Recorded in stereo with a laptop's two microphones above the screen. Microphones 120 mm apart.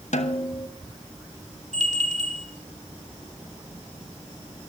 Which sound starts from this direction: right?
A bell, at 1.7 s.